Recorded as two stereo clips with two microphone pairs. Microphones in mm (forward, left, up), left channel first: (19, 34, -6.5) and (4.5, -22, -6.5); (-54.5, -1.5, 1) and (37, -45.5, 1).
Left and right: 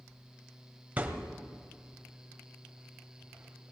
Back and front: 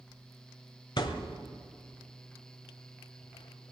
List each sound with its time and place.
1.0 s a thud: 170° right, 1.5 m